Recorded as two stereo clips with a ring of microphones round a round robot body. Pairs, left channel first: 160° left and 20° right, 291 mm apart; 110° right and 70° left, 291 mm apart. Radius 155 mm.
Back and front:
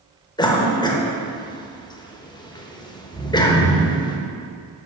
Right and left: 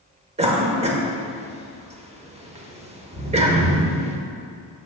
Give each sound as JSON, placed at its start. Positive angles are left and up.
{"t": 0.4, "sound": "a cough", "azimuth_deg": 100, "distance_m": 1.2}